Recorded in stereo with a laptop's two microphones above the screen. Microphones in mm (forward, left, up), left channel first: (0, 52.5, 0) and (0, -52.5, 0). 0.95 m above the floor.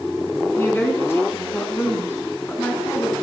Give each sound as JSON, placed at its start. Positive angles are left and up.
{"t": 0.6, "sound": "a woman speaking", "side_deg": 25, "distance_m": 10.0}